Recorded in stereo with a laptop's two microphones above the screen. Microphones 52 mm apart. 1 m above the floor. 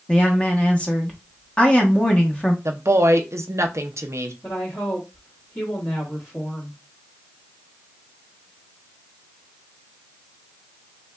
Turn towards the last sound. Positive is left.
turn(degrees=50)  # may be behind; listen again after turning